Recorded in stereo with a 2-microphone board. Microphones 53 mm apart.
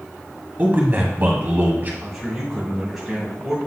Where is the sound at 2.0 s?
5° right (ahead or behind), 2.0 m.